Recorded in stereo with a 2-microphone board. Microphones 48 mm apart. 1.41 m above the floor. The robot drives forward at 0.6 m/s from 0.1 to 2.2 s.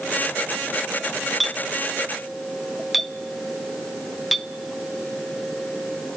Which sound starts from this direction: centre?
A clink, at 1.4 s.